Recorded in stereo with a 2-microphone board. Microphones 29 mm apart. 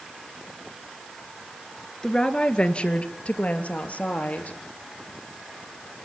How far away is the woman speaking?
About 1.8 m.